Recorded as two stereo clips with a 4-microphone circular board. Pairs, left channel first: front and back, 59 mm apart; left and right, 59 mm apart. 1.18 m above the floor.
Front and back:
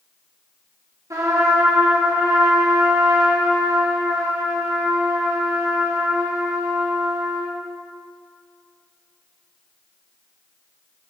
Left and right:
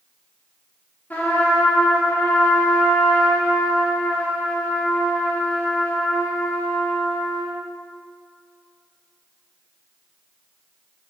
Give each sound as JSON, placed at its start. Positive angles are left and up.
{"t": 1.1, "sound": "a trumpet", "azimuth_deg": 150, "distance_m": 1.9}